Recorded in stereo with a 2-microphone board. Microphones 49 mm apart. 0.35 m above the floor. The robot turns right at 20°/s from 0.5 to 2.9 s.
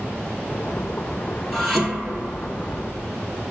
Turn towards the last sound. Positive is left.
turn(degrees=-20)  # may be behind; listen again after turning